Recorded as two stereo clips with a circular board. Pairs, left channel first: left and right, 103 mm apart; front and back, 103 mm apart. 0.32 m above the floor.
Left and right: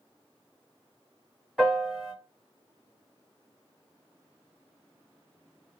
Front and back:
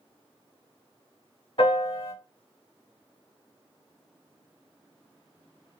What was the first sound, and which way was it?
A piano, straight ahead.